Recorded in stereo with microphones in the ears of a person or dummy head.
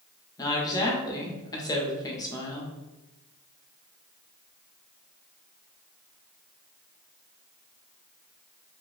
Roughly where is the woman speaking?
Left.